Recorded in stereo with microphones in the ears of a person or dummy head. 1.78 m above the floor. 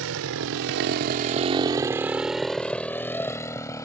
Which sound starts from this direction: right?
A motorcycle, at 0.0 s.